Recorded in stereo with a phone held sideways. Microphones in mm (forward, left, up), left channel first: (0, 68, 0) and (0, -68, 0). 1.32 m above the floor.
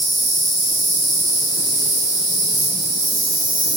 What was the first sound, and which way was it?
An insect, 75° right (ahead or behind).